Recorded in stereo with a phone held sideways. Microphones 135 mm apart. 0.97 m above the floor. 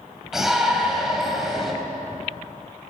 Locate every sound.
0.3 s a shout: 5° right (ahead or behind), 5.5 m